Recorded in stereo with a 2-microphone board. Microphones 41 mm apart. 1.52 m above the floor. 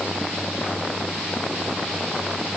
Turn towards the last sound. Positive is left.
No sound to turn to.